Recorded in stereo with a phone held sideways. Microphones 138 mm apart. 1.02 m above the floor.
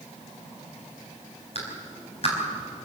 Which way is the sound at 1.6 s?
50° left (ahead or behind).